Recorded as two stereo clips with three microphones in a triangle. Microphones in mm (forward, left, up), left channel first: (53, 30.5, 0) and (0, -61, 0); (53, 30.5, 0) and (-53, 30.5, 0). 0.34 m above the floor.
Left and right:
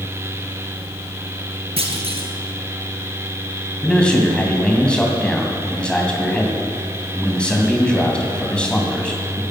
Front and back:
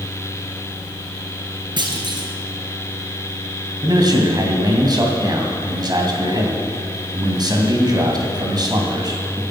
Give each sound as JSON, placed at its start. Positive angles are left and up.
{"t": 1.8, "sound": "a clunk", "azimuth_deg": -140, "distance_m": 2.0}
{"t": 3.8, "sound": "a man speaking", "azimuth_deg": 140, "distance_m": 2.5}